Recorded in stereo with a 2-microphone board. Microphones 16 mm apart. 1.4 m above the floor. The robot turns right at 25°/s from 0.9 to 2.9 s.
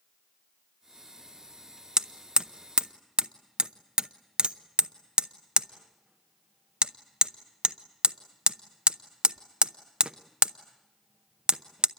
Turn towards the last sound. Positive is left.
turn(degrees=-65)  # may be behind; listen again after turning